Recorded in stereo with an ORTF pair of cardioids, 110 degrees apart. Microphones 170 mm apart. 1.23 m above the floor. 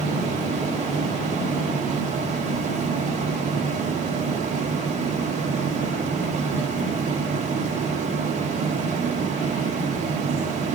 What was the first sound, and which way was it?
A fan, 45° right.